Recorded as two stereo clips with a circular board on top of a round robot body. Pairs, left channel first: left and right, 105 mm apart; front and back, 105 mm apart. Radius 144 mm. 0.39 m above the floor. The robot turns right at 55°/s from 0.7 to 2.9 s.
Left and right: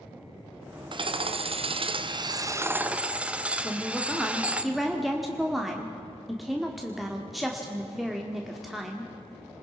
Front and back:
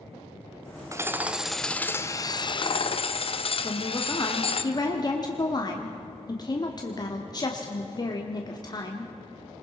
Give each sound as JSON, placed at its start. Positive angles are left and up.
{"t": 0.9, "sound": "hammering", "azimuth_deg": -125, "distance_m": 1.0}
{"t": 3.6, "sound": "a woman speaking", "azimuth_deg": 0, "distance_m": 1.6}